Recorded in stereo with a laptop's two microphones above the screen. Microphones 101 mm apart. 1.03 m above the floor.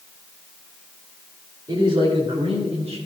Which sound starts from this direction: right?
A man speaking, at 1.7 s.